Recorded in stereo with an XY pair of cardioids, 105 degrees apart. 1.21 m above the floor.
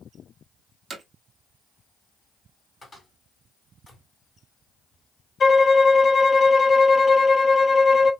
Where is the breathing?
I don't hear breathing.